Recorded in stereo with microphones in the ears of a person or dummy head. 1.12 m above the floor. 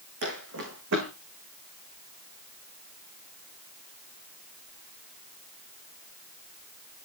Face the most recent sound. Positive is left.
turn(degrees=-65)  # may be behind; listen again after turning